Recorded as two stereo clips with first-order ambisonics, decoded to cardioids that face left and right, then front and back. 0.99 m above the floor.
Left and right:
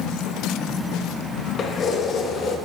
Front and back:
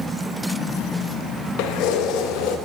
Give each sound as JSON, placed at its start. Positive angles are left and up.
{"t": 1.6, "sound": "keys jangling", "azimuth_deg": 30, "distance_m": 0.5}